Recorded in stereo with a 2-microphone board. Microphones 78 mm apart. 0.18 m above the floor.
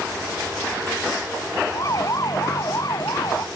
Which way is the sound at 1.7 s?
45° left (ahead or behind).